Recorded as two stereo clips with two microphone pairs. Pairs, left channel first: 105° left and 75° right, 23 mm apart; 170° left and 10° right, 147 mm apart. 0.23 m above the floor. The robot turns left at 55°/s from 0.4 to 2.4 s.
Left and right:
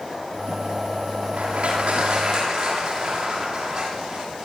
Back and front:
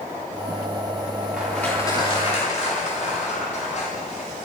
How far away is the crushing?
About 7.5 m.